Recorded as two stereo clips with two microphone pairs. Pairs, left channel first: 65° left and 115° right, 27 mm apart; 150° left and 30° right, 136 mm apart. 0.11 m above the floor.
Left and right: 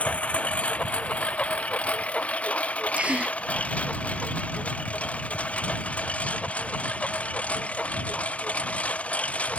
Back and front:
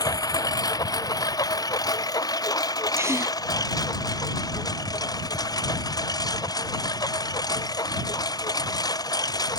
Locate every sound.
0.0 s a lawn mower: 90° left
3.0 s a gasp: 100° right